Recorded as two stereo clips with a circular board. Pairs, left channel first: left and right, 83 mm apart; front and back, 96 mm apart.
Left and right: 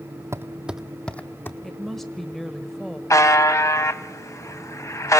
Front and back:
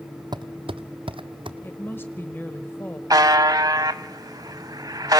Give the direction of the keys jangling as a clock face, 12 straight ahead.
No keys jangling in this recording.